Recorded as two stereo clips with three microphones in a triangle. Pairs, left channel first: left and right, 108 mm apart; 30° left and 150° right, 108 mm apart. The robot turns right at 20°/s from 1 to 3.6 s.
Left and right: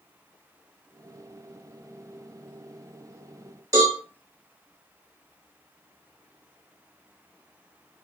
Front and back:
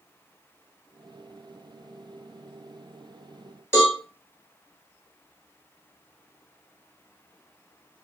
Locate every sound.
3.7 s a cowbell: 35° right, 1.5 m